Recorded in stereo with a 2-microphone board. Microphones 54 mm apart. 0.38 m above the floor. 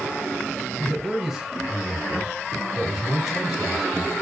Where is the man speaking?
5° right (ahead or behind), 0.9 m.